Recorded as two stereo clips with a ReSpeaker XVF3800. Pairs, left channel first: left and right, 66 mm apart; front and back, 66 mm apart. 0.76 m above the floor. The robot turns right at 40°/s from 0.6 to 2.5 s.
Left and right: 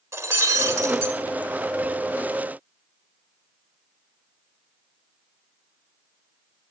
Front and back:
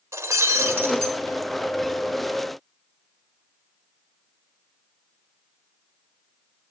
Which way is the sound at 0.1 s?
130° right.